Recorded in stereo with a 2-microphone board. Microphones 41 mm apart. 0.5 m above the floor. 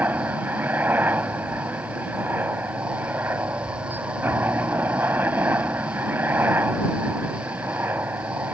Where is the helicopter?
50° right (ahead or behind); by 8.6 s 55° right (ahead or behind).